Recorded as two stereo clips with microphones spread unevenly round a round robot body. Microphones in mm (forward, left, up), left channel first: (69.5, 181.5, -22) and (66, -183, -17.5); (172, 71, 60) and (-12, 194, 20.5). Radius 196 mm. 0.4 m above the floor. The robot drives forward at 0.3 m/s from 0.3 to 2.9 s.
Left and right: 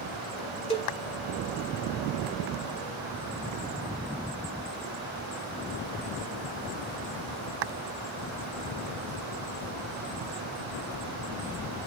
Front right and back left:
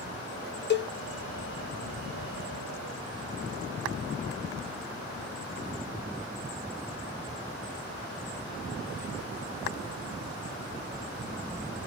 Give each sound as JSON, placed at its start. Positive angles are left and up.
{"t": 0.7, "sound": "a cowbell", "azimuth_deg": 15, "distance_m": 0.9}